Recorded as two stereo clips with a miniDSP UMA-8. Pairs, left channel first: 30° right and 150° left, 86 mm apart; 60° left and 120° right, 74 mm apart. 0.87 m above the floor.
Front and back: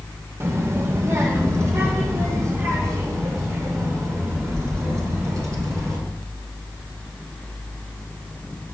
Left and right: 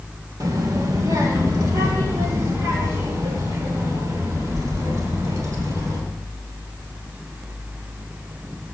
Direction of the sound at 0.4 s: 155° right.